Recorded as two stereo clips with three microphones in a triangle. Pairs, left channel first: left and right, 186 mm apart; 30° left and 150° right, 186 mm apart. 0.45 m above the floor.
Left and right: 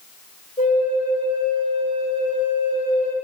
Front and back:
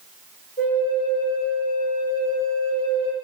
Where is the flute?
40° left, 1.2 m.